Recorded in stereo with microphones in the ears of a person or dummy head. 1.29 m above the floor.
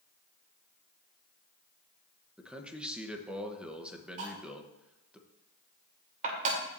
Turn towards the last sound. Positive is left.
turn(degrees=-40)  # may be behind; listen again after turning